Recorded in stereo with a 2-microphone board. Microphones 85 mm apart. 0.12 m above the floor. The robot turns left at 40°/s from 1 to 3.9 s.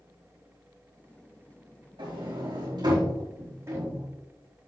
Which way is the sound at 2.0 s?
75° right (ahead or behind).